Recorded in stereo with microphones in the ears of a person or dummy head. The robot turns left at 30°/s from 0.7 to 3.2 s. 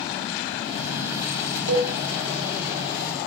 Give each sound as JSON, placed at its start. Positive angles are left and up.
{"t": 1.7, "sound": "a cowbell", "side_deg": -70, "distance_m": 3.5}